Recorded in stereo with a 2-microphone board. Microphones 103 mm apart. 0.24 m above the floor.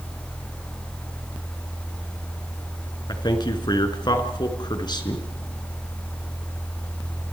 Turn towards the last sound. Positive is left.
turn(degrees=45)  # may be behind; listen again after turning